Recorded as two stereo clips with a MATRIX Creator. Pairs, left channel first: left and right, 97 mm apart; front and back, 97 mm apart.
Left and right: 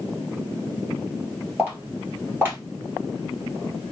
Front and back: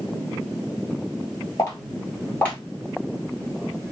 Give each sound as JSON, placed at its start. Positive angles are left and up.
{"t": 1.6, "sound": "footsteps", "azimuth_deg": -35, "distance_m": 1.7}